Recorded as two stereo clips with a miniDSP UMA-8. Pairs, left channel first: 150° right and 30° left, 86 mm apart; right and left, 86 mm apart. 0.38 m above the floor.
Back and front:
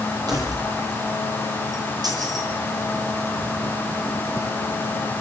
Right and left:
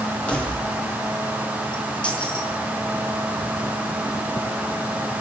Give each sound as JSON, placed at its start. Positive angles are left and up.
{"t": 0.3, "sound": "keys jangling", "azimuth_deg": -15, "distance_m": 7.0}